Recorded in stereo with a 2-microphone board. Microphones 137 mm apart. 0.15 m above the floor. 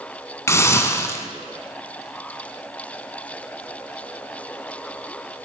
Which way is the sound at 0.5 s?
20° left (ahead or behind).